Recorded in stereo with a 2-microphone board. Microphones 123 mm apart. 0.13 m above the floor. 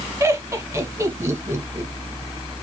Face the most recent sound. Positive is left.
turn(degrees=-25)  # may be behind; listen again after turning